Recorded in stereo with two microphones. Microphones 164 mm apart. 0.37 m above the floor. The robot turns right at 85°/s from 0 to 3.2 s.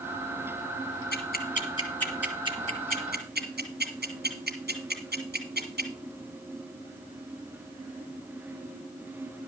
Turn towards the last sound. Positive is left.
turn(degrees=-85)